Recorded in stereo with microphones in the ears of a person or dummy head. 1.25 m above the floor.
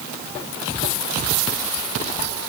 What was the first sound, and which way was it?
Only background noise.